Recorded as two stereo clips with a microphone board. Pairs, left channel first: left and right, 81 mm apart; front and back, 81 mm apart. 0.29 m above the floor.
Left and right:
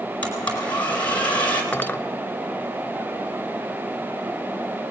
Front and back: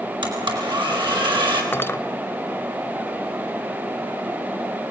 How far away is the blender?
About 4.5 m.